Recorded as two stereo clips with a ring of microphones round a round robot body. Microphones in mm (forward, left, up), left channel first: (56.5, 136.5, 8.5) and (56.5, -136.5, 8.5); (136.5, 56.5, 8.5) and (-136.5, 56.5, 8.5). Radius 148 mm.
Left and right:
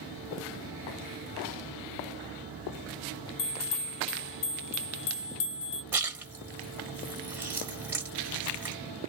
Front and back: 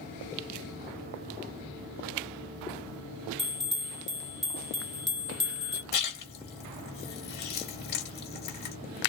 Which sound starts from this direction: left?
A bell, at 3.4 s.